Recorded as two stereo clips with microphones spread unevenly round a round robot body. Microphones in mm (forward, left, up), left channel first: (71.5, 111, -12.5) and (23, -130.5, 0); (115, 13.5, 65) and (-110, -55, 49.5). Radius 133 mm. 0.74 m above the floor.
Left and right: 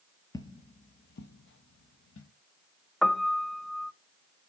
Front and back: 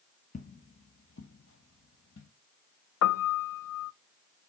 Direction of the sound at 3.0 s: 10° right.